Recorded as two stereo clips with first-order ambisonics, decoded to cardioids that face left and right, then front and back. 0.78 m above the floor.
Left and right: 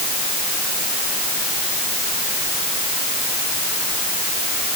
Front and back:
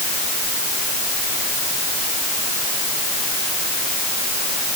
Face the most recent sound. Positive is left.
No sound to turn to.